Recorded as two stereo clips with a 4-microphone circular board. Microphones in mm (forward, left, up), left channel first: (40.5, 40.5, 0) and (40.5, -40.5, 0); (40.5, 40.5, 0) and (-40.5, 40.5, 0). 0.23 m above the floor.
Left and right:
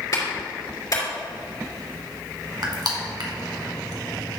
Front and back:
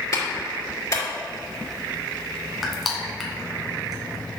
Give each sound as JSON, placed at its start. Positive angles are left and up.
{"t": 0.1, "sound": "a clap", "azimuth_deg": 45, "distance_m": 3.0}
{"t": 2.6, "sound": "crushing", "azimuth_deg": -90, "distance_m": 1.6}